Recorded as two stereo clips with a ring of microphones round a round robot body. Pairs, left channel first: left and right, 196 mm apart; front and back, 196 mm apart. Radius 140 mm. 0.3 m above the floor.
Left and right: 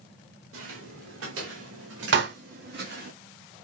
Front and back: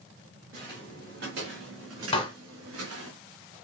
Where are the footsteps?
120° right, 3 m; by 3.1 s 150° right, 2.0 m.